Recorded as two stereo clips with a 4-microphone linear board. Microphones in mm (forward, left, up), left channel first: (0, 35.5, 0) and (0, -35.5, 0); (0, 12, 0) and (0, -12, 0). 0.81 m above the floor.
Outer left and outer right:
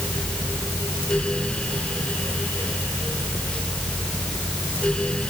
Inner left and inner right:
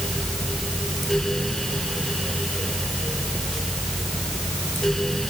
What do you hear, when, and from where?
Only background noise.